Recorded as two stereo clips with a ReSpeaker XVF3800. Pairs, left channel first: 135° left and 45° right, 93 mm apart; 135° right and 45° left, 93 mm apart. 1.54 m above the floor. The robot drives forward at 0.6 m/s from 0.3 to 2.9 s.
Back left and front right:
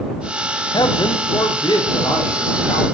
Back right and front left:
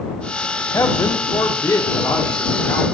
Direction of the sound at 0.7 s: 170° left.